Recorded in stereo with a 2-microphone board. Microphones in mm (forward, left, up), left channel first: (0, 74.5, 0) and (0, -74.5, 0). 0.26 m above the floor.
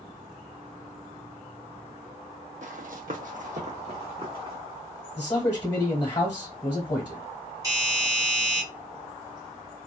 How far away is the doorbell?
About 1.6 m.